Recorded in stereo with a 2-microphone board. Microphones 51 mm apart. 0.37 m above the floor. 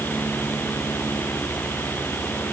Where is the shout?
I don't hear a shout.